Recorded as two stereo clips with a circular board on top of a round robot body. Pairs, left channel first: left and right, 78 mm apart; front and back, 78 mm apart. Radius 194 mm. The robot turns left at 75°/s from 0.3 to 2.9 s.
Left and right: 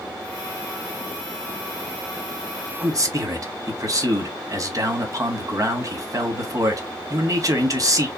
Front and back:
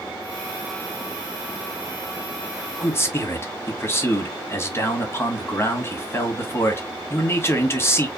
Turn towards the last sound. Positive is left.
turn(degrees=-55)